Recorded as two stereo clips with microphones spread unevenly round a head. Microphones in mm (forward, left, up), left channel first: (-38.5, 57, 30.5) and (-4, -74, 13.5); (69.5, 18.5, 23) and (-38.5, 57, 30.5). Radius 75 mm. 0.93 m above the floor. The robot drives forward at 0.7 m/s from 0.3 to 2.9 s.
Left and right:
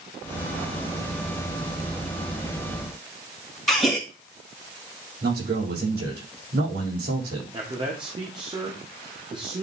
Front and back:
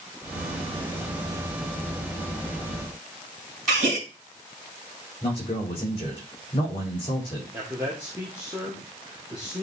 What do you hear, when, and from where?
3.7 s a gasp: 165° right, 2.5 m
5.2 s a man speaking: 75° right, 5 m
7.5 s a man speaking: 120° right, 1.4 m